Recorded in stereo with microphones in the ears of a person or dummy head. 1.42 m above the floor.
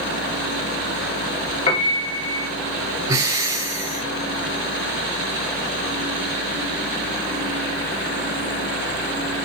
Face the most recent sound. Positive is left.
turn(degrees=-20)  # may be behind; listen again after turning